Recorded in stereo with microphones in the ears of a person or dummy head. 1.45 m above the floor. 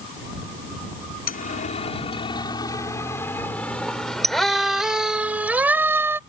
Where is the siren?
45° left (ahead or behind); by 6.2 s 10° right (ahead or behind).